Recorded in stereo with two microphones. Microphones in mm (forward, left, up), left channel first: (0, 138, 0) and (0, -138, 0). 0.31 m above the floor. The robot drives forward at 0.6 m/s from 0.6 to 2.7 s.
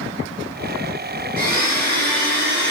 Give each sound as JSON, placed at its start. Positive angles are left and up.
{"t": 1.4, "sound": "a blender", "side_deg": -35, "distance_m": 4.0}